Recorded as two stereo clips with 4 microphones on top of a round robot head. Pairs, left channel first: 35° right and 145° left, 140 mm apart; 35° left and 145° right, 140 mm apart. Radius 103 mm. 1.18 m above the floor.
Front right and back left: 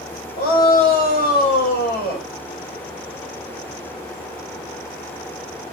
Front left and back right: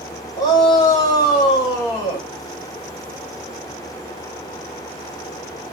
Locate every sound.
0.4 s a shout: 30° right, 8 m